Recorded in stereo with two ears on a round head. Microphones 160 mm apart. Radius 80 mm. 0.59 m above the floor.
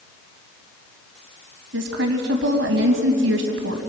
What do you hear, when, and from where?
1.7 s a woman speaking: 80° right, 3.5 m